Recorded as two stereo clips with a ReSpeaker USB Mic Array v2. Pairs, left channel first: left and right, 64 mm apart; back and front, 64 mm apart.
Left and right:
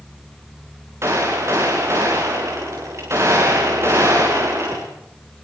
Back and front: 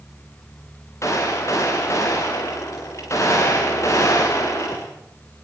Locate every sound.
1.0 s a gunshot: 140° right, 8.5 m